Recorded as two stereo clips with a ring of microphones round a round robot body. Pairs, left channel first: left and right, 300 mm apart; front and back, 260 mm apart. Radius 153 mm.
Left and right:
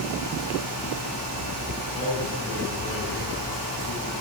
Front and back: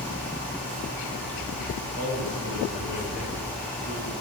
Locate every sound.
1.9 s a man speaking: 15° left, 6.5 m